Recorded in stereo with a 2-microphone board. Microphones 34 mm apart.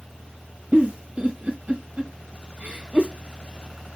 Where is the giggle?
55° right (ahead or behind), 1.9 m.